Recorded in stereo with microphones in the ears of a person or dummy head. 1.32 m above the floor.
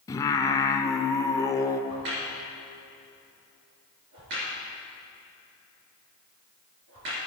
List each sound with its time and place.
0.1 s singing: 15° left (ahead or behind), 0.6 m
1.9 s a crack: 60° right (ahead or behind), 3.5 m